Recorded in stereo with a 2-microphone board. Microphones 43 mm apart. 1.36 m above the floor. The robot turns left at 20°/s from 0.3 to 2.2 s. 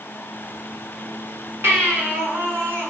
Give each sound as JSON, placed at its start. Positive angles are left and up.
{"t": 1.6, "sound": "a baby crying", "side_deg": -65, "distance_m": 1.8}